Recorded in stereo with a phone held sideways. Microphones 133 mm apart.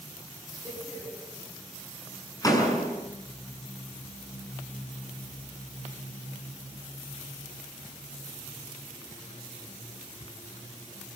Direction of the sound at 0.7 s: 25° left (ahead or behind).